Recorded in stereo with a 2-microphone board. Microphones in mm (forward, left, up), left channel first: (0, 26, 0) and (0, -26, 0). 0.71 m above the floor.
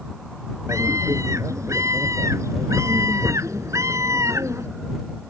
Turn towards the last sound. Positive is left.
turn(degrees=-75)  # may be behind; listen again after turning